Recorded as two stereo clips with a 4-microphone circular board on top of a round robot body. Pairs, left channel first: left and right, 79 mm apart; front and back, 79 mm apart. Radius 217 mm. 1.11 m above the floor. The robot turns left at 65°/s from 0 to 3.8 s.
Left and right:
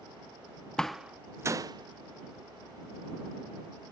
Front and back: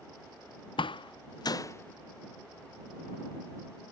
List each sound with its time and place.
0.8 s a door slam: 10° left; by 3.9 s 175° left